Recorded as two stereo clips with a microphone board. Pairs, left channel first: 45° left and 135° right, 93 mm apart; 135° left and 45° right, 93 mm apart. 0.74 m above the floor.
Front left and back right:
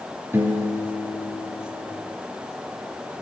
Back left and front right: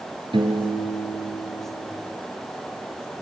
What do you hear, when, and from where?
0.3 s a piano: 70° right, 2.5 m